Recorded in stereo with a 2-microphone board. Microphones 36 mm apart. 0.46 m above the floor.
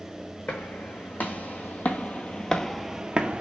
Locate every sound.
0.5 s footsteps: 70° left (ahead or behind), 1.9 m; by 3.4 s 40° right (ahead or behind), 0.7 m